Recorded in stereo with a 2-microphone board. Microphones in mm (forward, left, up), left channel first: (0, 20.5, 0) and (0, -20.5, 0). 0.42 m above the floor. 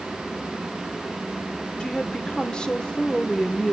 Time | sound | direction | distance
1.8 | a woman speaking | 20° left (ahead or behind) | 1.1 m